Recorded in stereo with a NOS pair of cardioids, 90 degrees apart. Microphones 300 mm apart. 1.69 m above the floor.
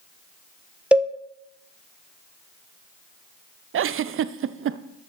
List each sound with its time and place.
0.9 s a cowbell: 5° right, 0.7 m
3.7 s a giggle: 45° right, 0.5 m